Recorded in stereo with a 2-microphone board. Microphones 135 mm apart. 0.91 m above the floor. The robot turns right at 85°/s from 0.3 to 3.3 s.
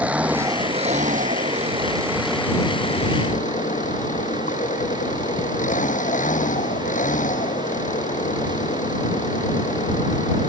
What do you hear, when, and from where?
0.0 s an engine running: 170° right; by 10.5 s 85° left